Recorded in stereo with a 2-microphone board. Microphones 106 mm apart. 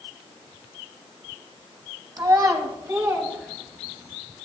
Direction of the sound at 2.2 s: 40° right (ahead or behind).